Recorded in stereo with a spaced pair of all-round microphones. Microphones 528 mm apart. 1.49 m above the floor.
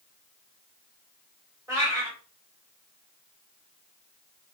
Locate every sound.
1.7 s a cat meowing: 5° right (ahead or behind), 2 m